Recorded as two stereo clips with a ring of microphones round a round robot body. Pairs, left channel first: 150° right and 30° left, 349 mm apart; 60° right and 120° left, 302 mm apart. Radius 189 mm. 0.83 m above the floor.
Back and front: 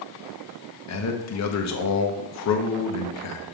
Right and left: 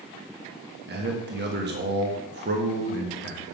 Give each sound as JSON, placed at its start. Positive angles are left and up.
{"t": 0.9, "sound": "a man speaking", "azimuth_deg": 175, "distance_m": 1.1}